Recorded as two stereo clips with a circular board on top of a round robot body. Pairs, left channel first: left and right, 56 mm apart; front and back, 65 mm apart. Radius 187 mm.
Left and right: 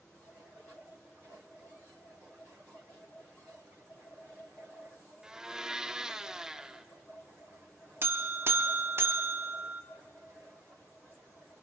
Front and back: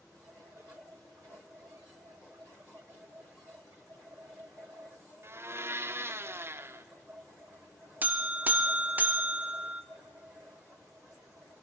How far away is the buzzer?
About 1.2 m.